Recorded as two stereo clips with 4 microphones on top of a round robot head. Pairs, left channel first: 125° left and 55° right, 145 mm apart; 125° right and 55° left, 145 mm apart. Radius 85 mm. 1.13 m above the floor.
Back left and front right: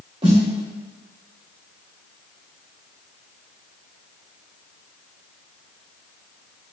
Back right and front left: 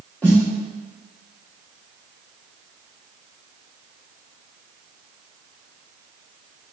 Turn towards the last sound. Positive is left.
turn(degrees=-50)